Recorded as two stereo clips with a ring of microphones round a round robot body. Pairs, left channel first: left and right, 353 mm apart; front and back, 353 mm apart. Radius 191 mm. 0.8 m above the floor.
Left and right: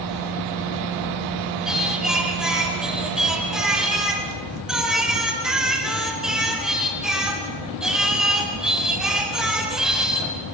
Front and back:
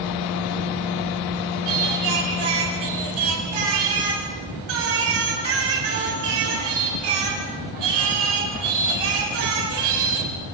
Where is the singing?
Straight behind, 4.5 m.